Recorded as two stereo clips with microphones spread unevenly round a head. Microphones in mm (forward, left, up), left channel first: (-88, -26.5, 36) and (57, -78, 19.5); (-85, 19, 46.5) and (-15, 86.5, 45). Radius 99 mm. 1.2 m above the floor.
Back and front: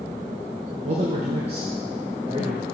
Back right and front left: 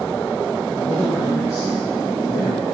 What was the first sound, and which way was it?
A man speaking, 55° right.